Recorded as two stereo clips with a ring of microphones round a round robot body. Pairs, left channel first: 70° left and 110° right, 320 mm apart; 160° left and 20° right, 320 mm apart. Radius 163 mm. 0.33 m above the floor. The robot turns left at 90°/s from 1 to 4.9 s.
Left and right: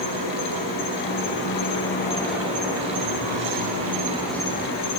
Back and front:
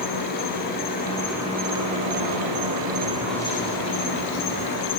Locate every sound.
0.0 s an insect: 95° left, 5 m; by 5.0 s 105° left, 5 m